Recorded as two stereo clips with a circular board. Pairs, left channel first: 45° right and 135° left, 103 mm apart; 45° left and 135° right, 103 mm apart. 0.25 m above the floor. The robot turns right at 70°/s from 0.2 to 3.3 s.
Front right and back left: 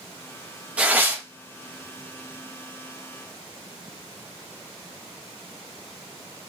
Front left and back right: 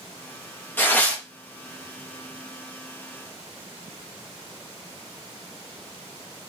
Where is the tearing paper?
75° left, 0.7 m; by 1.2 s 110° left, 0.7 m.